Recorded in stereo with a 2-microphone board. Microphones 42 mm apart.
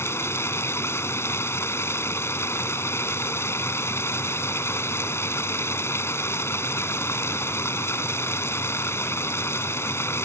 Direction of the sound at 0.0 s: 80° left.